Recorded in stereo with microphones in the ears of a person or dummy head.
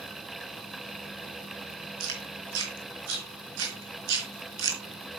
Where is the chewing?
75° right (ahead or behind), 3.5 m.